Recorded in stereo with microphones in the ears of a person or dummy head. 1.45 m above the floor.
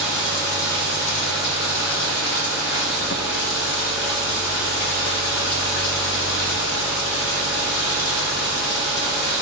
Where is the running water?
55° left (ahead or behind), 0.8 m.